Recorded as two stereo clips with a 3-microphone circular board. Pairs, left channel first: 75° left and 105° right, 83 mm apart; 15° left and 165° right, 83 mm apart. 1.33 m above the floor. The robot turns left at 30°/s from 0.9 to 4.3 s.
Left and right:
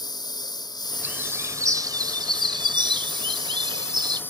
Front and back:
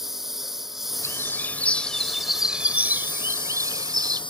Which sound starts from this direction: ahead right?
A bird, at 1.0 s.